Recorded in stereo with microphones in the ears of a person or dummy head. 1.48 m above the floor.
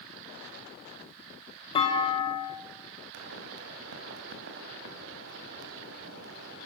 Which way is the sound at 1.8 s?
25° left (ahead or behind).